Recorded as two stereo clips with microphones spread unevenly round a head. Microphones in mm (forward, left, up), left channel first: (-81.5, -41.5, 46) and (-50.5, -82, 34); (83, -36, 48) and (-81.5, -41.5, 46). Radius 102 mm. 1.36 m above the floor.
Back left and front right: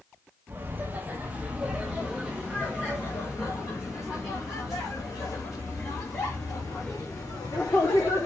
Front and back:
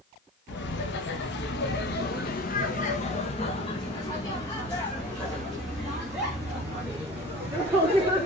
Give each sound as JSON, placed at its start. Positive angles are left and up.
{"t": 0.5, "sound": "laughter", "azimuth_deg": 10, "distance_m": 2.0}